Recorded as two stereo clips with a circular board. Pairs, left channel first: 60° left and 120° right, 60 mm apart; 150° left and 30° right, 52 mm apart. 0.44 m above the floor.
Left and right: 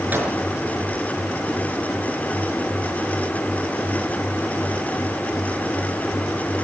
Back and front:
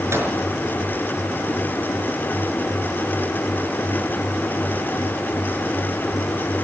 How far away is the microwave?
About 5 m.